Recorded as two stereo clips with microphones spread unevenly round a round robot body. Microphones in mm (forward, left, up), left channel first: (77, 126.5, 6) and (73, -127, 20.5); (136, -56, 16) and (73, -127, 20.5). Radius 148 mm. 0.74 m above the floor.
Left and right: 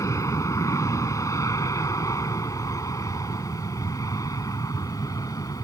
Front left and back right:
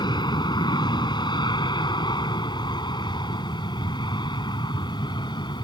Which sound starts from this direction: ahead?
An aircraft, at 0.0 s.